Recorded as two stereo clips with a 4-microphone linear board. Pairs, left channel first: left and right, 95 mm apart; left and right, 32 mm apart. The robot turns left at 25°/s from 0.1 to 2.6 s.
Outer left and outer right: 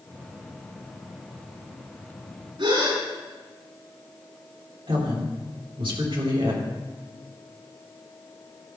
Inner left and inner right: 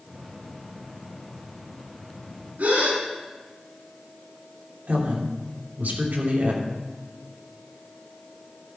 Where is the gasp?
75° right (ahead or behind), 5 m.